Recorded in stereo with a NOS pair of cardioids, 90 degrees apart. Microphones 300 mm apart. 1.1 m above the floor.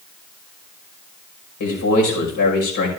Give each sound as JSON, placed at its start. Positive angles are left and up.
{"t": 1.6, "sound": "a man speaking", "azimuth_deg": 70, "distance_m": 5.0}